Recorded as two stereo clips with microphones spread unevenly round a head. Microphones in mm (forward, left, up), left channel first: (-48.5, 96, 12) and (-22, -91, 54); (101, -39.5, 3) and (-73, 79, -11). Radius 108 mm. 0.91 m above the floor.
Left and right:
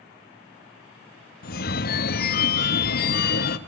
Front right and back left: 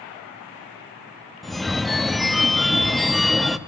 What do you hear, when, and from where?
1.4 s a phone ringing: 55° left, 0.8 m